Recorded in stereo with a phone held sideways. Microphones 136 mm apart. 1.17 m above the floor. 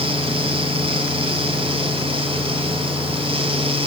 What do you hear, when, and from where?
0.0 s a fan: 40° right (ahead or behind), 1.5 m